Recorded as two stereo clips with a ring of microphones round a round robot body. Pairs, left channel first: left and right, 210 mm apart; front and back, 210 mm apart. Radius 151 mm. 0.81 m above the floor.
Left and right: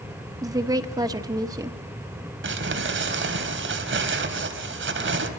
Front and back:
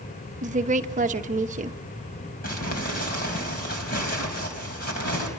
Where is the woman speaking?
155° right, 1.0 m.